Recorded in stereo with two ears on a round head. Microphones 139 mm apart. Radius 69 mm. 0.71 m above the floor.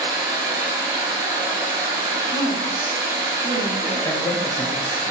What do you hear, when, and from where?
0.0 s running water: 30° right (ahead or behind), 1.7 m
2.3 s a woman speaking: 65° right (ahead or behind), 1.8 m
4.0 s a man speaking: 20° left (ahead or behind), 0.7 m